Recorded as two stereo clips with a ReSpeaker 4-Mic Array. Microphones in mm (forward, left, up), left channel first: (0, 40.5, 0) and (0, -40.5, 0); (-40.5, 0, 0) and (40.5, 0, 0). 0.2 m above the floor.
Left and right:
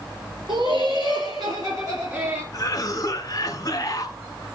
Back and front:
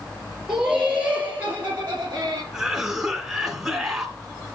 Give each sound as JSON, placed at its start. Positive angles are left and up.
{"t": 0.5, "sound": "laughter", "azimuth_deg": -85, "distance_m": 3.0}
{"t": 2.5, "sound": "a cough", "azimuth_deg": 70, "distance_m": 1.9}